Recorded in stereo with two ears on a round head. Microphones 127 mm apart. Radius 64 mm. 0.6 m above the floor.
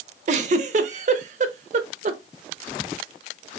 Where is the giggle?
50° right (ahead or behind), 0.6 m.